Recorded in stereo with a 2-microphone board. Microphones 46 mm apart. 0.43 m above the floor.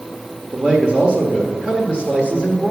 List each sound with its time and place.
0.5 s a man speaking: 20° right (ahead or behind), 1.3 m